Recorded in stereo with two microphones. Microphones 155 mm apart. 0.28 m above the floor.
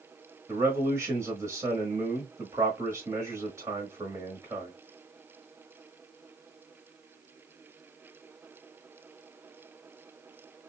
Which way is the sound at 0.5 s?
20° right (ahead or behind).